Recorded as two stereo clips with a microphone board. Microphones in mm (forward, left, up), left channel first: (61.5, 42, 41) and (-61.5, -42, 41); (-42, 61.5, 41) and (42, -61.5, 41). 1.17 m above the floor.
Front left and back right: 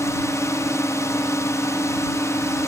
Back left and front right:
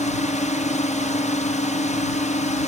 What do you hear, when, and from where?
0.0 s a drone: 100° left